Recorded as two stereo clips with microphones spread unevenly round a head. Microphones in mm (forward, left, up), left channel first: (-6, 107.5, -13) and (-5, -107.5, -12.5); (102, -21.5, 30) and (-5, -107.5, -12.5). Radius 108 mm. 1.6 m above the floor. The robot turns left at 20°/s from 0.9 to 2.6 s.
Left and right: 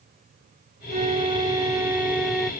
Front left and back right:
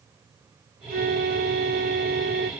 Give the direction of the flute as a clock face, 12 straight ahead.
5 o'clock.